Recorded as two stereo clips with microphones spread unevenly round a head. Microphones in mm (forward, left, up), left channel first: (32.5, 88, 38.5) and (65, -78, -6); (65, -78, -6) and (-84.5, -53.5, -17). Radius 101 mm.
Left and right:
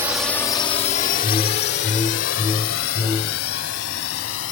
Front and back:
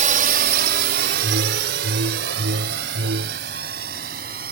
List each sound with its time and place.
0.0 s a drone: 160° right; by 4.5 s 125° left
1.2 s a whoosh: 175° left